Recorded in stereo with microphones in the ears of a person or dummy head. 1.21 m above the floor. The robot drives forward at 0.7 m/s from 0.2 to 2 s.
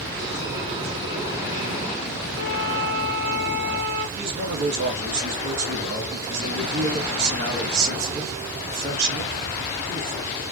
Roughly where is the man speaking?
Right.